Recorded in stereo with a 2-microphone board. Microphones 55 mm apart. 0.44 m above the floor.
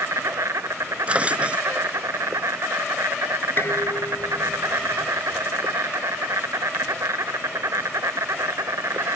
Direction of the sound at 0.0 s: 70° right (ahead or behind).